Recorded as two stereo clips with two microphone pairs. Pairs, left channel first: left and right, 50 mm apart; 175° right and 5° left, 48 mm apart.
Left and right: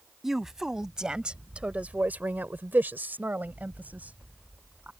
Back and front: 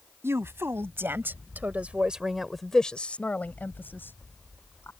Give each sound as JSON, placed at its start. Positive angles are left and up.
{"t": 0.2, "sound": "a woman speaking", "azimuth_deg": -5}